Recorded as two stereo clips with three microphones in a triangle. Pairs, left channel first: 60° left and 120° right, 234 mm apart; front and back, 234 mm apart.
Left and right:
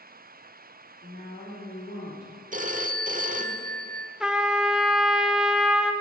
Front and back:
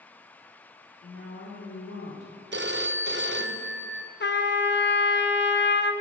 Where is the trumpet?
35° right, 0.6 m.